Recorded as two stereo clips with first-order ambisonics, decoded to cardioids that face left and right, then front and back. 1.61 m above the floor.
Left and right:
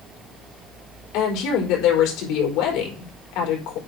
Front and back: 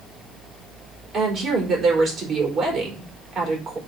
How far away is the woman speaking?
About 4 m.